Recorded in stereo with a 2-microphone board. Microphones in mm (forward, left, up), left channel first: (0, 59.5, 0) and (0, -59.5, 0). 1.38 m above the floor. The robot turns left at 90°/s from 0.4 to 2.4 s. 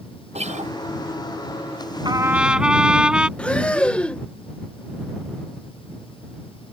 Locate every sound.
0.3 s a guitar: 65° right (ahead or behind); by 0.7 s 80° right
2.0 s a trumpet: 140° right; by 3.3 s 175° right
3.4 s breathing: 10° left (ahead or behind)